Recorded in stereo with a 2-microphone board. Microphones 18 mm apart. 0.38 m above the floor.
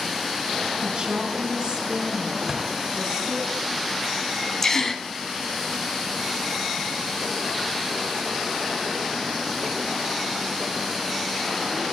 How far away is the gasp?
About 1.4 m.